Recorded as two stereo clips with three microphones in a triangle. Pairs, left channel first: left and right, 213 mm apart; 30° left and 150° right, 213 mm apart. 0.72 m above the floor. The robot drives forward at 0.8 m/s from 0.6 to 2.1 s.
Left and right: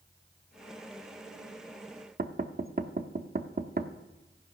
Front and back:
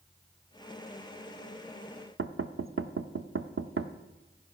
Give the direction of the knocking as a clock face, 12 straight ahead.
5 o'clock.